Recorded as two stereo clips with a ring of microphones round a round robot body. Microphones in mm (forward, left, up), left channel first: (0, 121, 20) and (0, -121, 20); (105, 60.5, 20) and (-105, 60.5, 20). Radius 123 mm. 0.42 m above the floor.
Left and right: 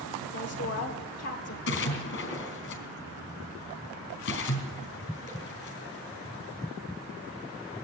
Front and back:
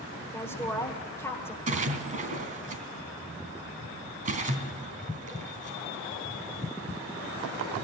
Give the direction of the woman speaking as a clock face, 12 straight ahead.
10 o'clock.